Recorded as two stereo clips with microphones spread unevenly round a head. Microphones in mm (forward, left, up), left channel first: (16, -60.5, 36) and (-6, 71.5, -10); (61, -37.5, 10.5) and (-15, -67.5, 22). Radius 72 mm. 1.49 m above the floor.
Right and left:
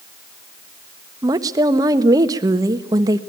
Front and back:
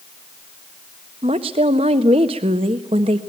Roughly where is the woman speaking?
Behind.